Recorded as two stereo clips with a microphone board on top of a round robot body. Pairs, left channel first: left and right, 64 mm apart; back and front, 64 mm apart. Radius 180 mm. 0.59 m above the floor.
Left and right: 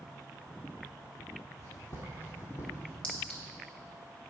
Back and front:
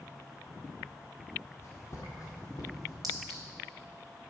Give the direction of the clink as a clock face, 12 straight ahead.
11 o'clock.